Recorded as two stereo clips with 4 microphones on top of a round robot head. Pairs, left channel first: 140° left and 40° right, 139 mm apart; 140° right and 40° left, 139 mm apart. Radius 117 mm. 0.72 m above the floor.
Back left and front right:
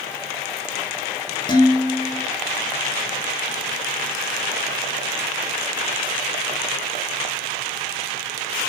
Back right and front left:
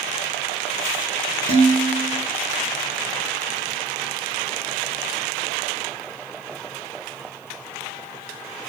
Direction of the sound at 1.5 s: 80° left.